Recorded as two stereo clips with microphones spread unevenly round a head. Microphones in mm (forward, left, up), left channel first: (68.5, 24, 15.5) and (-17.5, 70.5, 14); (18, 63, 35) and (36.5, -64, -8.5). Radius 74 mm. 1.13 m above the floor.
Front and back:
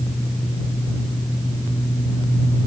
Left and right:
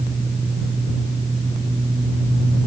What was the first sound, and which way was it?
Only background noise.